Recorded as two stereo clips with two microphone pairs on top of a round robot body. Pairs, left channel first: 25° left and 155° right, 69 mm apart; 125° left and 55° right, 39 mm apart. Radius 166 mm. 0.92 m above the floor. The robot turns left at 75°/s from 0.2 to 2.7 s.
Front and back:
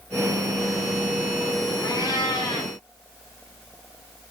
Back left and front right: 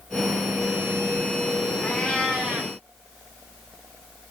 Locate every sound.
1.8 s a cat meowing: 65° left, 0.6 m; by 2.7 s straight ahead, 0.6 m